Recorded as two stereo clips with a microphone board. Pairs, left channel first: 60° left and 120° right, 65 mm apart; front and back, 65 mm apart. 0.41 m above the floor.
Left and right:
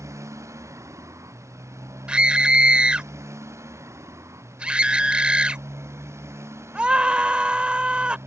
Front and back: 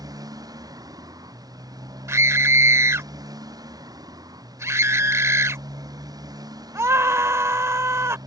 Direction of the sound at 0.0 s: 160° right.